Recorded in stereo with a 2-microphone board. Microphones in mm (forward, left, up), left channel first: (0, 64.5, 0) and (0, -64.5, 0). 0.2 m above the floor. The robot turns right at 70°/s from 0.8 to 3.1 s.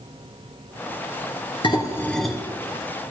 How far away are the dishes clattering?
About 2.5 m.